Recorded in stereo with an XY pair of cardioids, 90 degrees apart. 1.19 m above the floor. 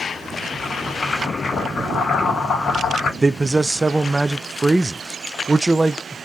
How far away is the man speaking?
About 0.5 m.